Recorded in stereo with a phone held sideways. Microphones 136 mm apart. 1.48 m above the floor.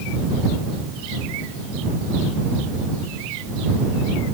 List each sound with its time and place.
Only background noise.